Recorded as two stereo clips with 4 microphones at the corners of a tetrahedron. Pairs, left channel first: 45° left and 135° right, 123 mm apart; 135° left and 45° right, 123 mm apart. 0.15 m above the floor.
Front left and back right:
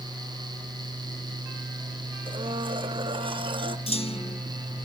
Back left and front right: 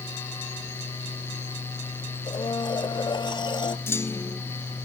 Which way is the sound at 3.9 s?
70° left.